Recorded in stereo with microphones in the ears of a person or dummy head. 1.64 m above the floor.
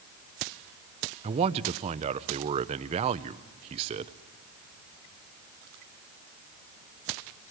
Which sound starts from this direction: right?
A man speaking, at 1.2 s.